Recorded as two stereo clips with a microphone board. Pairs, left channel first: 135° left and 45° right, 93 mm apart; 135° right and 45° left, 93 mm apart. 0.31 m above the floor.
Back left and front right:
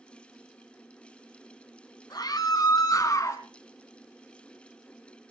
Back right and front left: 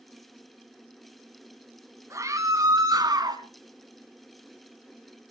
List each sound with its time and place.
2.1 s a scream: 95° left, 2.5 m; by 3.4 s 80° left, 2.5 m